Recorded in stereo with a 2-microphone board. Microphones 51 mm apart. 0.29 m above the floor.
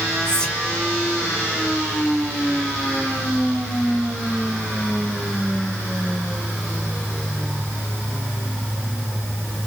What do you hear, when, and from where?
0.2 s whispering: 15° left (ahead or behind), 0.9 m